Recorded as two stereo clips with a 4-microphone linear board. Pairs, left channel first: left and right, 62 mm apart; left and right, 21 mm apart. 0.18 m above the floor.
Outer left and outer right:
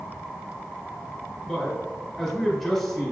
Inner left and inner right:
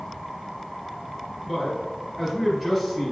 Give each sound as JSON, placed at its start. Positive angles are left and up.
{"t": 1.5, "sound": "a man speaking", "side_deg": 0, "distance_m": 1.1}